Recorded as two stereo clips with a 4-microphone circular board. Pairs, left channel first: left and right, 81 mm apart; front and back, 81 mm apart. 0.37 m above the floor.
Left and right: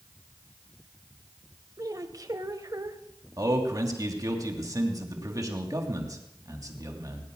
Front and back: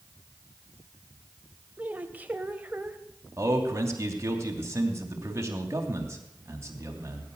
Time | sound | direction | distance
1.8 | a woman speaking | 115° right | 1.5 m
3.4 | a man speaking | 130° right | 3 m